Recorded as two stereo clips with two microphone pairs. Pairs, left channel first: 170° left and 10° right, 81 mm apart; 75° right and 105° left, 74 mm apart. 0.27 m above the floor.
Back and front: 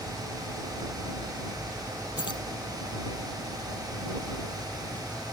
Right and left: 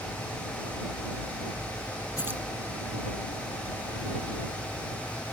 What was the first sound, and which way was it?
Keys jangling, 160° left.